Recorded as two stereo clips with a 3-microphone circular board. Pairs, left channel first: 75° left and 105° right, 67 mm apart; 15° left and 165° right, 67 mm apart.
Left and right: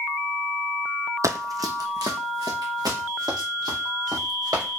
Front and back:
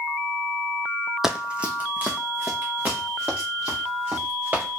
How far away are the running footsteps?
About 0.5 m.